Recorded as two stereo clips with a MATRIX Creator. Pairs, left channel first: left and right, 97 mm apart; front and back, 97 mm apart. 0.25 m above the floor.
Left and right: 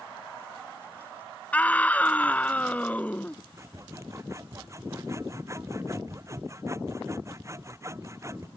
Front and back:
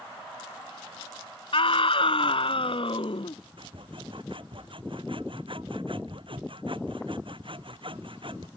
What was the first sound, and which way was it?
A scream, 15° left.